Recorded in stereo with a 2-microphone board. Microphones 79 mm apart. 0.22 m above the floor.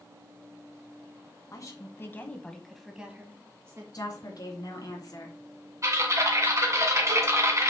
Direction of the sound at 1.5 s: 50° left (ahead or behind).